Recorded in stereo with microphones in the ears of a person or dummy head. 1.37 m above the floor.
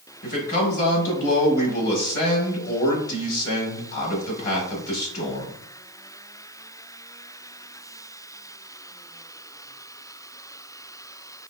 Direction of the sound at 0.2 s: 45° left (ahead or behind).